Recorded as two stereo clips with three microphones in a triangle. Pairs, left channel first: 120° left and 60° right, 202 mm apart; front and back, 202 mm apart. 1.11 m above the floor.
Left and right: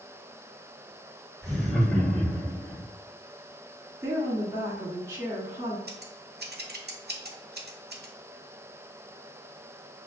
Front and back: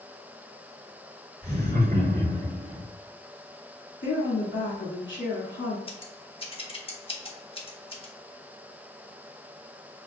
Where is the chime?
No chime in this recording.